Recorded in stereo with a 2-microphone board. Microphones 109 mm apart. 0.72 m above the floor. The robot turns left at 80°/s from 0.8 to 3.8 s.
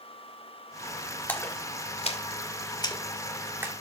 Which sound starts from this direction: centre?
A splash, at 1.3 s.